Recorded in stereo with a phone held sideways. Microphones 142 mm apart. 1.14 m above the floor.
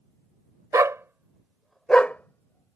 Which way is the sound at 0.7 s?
25° right (ahead or behind).